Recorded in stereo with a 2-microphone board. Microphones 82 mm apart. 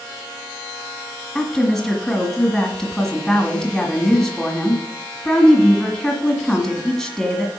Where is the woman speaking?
5° left (ahead or behind), 1.7 m.